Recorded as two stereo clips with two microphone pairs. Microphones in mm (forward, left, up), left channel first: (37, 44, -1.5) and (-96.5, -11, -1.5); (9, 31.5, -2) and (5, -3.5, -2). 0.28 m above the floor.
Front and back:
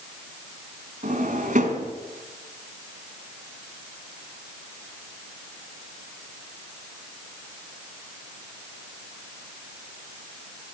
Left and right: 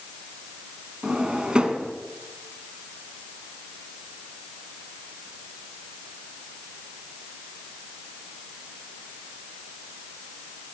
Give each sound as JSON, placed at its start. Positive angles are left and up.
{"t": 1.0, "sound": "a drawer", "azimuth_deg": -160, "distance_m": 1.7}